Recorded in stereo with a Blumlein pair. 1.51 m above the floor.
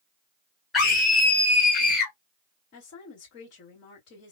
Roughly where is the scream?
Ahead.